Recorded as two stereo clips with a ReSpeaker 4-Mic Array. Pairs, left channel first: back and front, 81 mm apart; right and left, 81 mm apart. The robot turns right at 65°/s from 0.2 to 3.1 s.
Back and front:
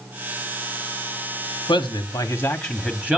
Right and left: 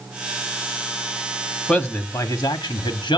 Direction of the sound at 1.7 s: 165° right.